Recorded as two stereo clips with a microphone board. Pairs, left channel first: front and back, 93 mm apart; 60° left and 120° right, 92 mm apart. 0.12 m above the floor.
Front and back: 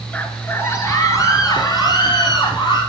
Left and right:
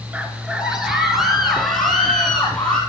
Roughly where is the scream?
Ahead right.